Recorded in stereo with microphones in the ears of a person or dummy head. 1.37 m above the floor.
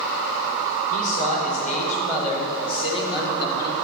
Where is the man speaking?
45° left (ahead or behind), 4.5 m; by 3.7 s 20° left (ahead or behind), 4 m.